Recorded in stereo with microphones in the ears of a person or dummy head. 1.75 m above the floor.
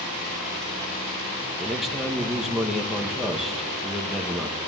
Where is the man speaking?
5° right (ahead or behind), 1.9 m.